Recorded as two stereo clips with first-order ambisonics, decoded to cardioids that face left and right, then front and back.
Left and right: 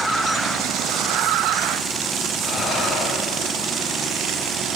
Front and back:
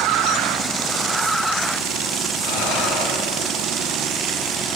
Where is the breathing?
5° left, 7.5 m.